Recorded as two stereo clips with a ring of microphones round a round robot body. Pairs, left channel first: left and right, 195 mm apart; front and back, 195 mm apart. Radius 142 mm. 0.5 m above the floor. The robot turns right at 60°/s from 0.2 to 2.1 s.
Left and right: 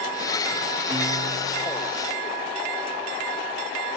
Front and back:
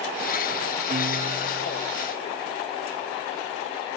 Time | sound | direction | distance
0.9 | a guitar | 155° right | ?